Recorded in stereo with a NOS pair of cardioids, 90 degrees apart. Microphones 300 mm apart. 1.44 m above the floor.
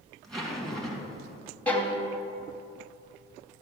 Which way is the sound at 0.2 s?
Straight ahead.